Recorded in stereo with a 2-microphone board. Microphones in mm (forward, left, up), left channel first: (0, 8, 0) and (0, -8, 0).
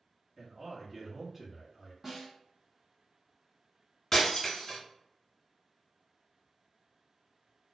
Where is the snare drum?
20° right (ahead or behind), 1.0 m.